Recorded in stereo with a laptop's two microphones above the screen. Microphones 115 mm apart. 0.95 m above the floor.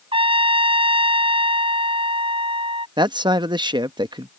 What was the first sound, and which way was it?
A trumpet, 55° right (ahead or behind).